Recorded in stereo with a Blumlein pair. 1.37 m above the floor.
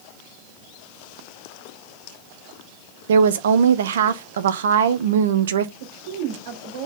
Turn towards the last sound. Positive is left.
turn(degrees=-60)